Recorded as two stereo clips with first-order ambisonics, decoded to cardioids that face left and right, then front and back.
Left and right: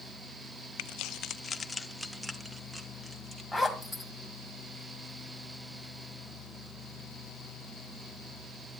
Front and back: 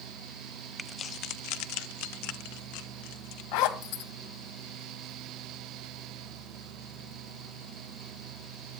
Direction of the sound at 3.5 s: Straight ahead.